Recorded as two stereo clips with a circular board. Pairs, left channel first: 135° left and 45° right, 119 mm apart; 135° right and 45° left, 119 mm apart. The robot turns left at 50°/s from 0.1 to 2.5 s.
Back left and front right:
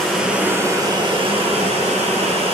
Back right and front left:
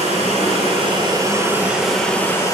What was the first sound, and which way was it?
Running water, 45° left.